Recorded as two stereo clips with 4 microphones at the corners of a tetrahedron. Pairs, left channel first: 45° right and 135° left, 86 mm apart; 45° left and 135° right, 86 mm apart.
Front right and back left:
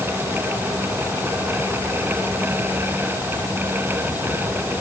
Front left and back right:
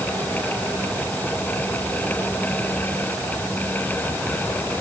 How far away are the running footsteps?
I don't hear running footsteps.